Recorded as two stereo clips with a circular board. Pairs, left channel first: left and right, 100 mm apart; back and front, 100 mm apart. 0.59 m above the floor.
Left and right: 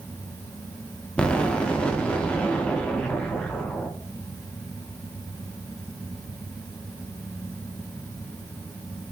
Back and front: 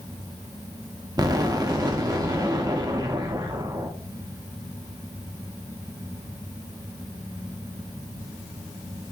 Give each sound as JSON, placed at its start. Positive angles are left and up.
{"t": 1.2, "sound": "an explosion", "azimuth_deg": 15, "distance_m": 0.8}